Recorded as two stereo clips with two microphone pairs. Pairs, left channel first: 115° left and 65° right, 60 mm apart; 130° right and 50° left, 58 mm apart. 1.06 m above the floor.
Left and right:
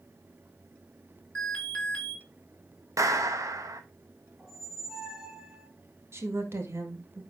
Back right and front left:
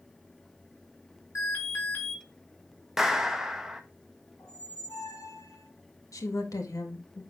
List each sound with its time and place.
1.4 s an alarm: 175° right, 3.5 m
3.0 s a clap: 35° right, 0.9 m
4.4 s a squeak: 145° right, 2.5 m
6.1 s a woman speaking: 115° right, 1.7 m